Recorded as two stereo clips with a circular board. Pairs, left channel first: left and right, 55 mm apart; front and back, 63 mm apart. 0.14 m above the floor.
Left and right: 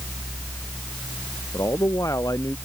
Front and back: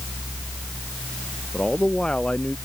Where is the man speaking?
75° left.